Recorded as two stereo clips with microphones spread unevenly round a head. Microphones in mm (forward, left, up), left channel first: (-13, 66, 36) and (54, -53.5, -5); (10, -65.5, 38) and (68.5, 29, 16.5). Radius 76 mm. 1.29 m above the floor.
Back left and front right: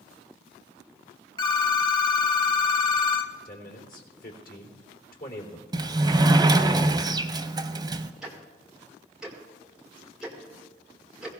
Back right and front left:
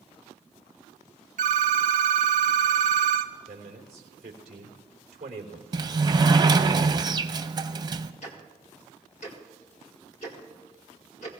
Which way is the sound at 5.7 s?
5° left.